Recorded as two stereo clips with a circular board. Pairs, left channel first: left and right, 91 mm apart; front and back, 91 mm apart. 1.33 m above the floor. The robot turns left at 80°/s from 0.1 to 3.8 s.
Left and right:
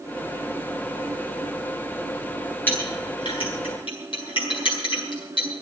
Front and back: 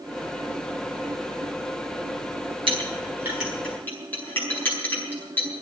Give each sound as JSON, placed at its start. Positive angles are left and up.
{"t": 2.7, "sound": "a clink", "azimuth_deg": 160, "distance_m": 9.5}